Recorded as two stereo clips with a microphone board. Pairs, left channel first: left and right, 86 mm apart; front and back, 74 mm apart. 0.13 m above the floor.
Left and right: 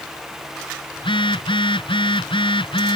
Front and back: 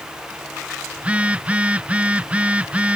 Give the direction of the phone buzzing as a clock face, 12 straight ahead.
8 o'clock.